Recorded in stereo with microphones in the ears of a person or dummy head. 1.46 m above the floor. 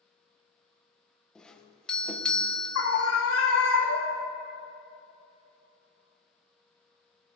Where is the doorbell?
Centre (ahead or behind), 1.2 m.